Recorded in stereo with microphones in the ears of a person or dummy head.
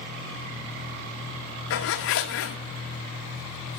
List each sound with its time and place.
1.7 s a zipper: 70° left (ahead or behind), 1.1 m